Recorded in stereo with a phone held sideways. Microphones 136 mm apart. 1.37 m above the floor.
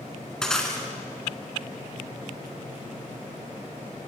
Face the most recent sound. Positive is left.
turn(degrees=5)  # may be behind; listen again after turning